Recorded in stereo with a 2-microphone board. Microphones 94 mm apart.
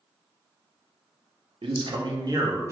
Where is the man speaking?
70° right (ahead or behind), 0.6 m; by 2.7 s 30° right (ahead or behind), 0.8 m.